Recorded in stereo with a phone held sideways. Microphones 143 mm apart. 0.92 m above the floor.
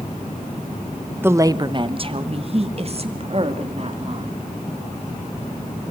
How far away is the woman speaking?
About 0.7 m.